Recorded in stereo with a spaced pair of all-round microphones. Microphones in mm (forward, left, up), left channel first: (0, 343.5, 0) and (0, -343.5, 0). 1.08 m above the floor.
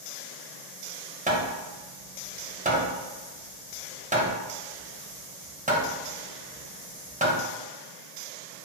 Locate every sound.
1.3 s hammering: 10° right (ahead or behind), 0.7 m